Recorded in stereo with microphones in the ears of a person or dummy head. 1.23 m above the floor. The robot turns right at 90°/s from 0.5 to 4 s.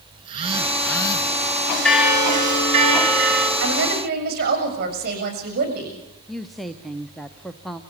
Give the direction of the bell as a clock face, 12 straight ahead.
6 o'clock.